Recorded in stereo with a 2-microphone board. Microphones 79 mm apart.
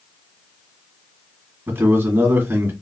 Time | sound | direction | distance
1.7 | a man speaking | 25° right (ahead or behind) | 1.6 m